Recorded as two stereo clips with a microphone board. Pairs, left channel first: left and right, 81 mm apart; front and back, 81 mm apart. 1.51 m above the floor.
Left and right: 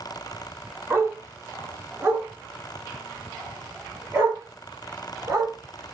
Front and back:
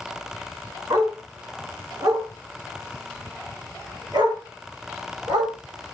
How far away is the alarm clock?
I don't hear an alarm clock.